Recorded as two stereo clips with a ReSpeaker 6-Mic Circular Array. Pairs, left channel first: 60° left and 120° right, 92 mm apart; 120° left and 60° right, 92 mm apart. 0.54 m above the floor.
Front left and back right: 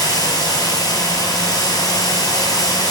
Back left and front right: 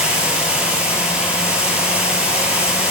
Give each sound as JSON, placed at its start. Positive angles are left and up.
{"t": 0.0, "sound": "running water", "azimuth_deg": 15, "distance_m": 1.5}